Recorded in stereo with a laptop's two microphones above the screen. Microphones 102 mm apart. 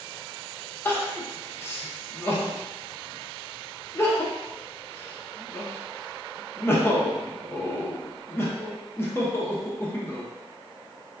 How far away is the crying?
About 0.5 m.